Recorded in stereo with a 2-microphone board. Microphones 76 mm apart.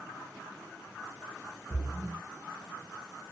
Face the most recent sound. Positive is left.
turn(degrees=0)  # may be behind; listen again after turning